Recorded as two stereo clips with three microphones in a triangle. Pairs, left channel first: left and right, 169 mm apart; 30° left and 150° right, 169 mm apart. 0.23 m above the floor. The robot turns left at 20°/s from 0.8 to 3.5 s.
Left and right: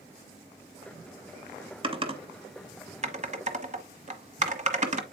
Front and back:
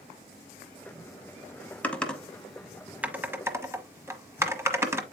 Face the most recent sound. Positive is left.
turn(degrees=-80)